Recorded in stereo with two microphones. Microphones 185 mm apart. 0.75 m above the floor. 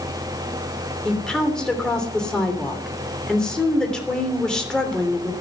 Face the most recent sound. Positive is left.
turn(degrees=5)  # may be behind; listen again after turning